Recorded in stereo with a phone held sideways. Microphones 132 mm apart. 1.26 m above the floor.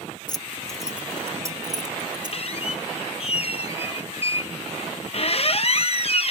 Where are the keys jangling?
35° left (ahead or behind); by 2.4 s 35° right (ahead or behind).